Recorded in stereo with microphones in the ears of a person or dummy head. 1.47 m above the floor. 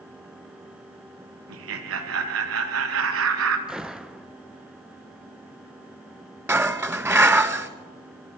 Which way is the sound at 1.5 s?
80° right.